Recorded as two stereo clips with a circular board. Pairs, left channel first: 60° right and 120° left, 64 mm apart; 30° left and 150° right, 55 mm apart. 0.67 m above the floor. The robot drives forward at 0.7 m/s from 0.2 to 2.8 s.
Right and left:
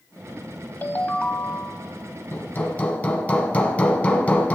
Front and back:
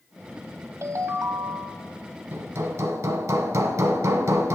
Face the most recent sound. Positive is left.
turn(degrees=-125)